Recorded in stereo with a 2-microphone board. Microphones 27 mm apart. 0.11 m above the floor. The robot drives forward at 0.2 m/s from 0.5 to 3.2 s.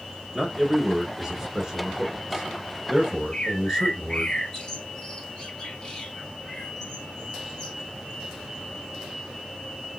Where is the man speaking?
20° right (ahead or behind), 1.3 m.